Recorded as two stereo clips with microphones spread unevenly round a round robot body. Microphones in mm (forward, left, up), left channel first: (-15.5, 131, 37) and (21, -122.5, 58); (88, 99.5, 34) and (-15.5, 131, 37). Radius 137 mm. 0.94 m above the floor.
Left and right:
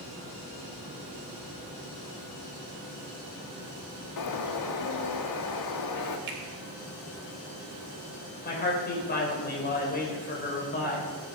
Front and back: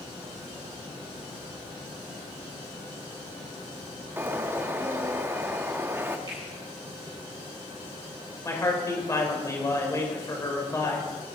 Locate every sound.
4.2 s a bird: 90° left, 1.3 m
6.3 s a finger snap: 130° right, 3 m
8.4 s a man speaking: 40° left, 4.5 m